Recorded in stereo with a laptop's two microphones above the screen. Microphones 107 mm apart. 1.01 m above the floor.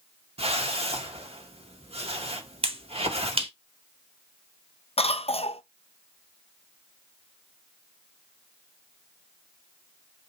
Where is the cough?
65° left (ahead or behind), 0.5 m.